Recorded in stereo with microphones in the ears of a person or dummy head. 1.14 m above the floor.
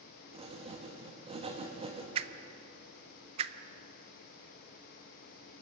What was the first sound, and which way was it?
Writing, 30° right (ahead or behind).